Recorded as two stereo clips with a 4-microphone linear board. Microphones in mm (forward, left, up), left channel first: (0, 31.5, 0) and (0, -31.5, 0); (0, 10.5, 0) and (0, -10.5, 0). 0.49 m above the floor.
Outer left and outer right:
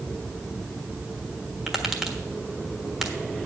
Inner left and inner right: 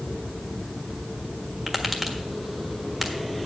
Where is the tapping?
10° right (ahead or behind), 1.3 m.